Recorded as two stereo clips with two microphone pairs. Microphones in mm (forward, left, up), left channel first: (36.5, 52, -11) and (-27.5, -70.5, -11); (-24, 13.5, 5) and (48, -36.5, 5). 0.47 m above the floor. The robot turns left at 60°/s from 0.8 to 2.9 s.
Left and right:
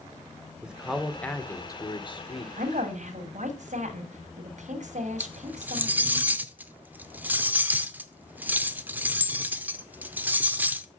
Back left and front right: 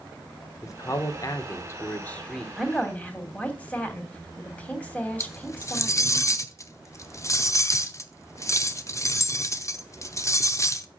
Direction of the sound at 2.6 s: 120° right.